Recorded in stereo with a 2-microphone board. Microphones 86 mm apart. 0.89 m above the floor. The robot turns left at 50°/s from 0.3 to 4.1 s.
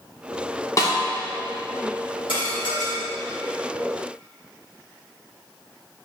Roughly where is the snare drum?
Left.